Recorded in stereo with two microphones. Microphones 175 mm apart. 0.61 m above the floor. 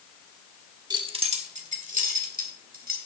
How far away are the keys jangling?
About 1.2 m.